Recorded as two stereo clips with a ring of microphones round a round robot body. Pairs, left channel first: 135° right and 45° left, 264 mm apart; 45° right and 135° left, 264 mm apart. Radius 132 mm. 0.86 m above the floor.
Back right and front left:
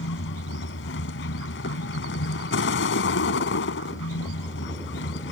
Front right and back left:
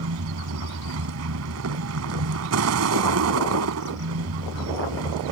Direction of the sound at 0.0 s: 175° left.